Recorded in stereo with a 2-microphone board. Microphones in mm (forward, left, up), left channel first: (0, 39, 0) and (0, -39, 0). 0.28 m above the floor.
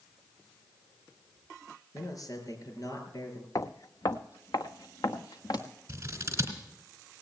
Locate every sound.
1.9 s a man speaking: 55° left (ahead or behind), 5 m
3.5 s footsteps: 50° left (ahead or behind), 0.7 m; by 5.6 s 65° left (ahead or behind), 1.9 m
5.9 s scissors: 35° right (ahead or behind), 3.5 m